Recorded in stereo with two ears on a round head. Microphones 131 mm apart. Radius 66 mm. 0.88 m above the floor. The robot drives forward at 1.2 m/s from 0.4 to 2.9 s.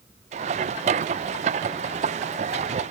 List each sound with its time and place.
Only background noise.